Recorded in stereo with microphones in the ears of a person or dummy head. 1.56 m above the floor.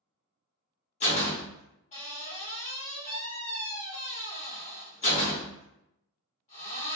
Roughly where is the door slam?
Left.